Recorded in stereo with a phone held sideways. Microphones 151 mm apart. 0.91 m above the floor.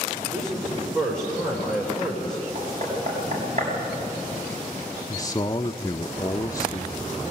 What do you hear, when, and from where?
0.3 s a man speaking: 15° right (ahead or behind), 4.5 m
2.5 s knocking: 55° right (ahead or behind), 6.5 m
5.1 s a man speaking: 25° left (ahead or behind), 0.6 m